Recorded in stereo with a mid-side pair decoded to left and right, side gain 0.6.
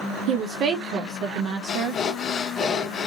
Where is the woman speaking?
60° right, 0.5 m.